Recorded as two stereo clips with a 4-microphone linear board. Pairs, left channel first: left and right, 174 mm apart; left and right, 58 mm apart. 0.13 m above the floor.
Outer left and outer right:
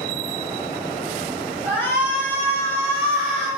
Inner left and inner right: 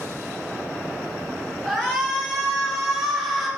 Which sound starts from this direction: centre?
A shout, at 1.6 s.